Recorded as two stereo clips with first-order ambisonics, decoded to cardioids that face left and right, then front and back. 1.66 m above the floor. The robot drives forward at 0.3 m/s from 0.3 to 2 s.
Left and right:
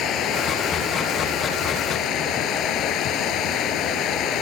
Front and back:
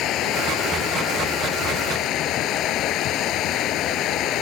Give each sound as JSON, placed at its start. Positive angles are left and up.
{"t": 0.0, "sound": "running water", "azimuth_deg": 45}